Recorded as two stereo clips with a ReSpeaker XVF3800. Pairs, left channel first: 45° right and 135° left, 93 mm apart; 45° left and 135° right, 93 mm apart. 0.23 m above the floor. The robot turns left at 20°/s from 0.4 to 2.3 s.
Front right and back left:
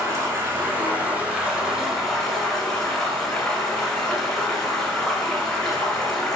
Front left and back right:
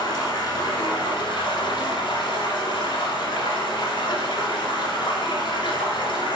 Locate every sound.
0.0 s running water: 75° left, 1.3 m; by 6.3 s 35° left, 1.3 m